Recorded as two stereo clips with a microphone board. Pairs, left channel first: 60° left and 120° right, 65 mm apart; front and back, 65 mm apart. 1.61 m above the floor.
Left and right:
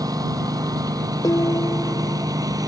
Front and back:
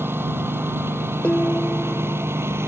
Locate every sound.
0.0 s a lawn mower: 130° right; by 2.7 s 135° right
1.2 s dishes clattering: 70° left